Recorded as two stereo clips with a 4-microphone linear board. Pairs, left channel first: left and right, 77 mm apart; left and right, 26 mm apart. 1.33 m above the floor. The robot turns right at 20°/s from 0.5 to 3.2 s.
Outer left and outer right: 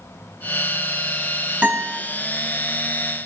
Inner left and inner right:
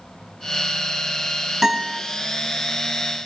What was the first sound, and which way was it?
A guitar, 15° right (ahead or behind).